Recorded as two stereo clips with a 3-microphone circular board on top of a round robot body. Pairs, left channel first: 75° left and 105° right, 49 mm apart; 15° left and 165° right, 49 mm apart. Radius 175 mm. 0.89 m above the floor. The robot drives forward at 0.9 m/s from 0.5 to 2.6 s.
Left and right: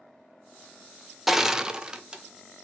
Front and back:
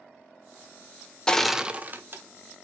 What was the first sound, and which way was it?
Crushing, 25° right.